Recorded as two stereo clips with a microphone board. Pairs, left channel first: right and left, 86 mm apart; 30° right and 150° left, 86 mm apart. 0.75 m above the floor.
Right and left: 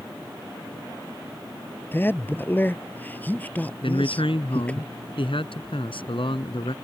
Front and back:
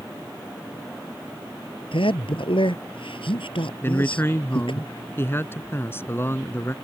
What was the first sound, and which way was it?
A man speaking, 25° right.